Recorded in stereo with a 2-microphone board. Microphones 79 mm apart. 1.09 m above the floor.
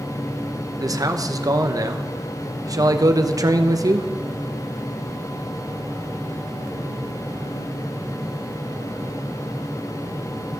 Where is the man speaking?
50° right (ahead or behind), 0.9 m.